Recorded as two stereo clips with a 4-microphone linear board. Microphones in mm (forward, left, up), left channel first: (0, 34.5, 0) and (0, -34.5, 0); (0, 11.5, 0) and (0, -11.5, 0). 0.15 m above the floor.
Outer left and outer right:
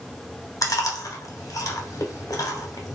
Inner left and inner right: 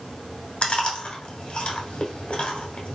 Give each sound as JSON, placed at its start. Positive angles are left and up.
{"t": 0.6, "sound": "chewing", "side_deg": 55, "distance_m": 0.9}